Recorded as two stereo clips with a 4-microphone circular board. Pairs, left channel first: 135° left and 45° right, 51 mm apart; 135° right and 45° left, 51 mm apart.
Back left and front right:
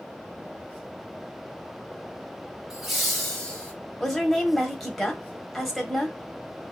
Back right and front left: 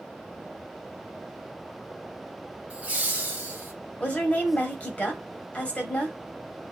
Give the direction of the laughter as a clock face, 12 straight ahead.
11 o'clock.